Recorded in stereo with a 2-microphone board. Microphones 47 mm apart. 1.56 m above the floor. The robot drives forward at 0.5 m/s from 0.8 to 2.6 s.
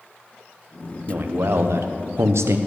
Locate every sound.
1.1 s a man speaking: 50° right (ahead or behind), 1.0 m; by 2.6 s 80° right, 0.8 m